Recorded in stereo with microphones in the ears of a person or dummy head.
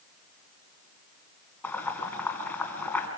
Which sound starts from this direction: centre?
Boiling, at 1.6 s.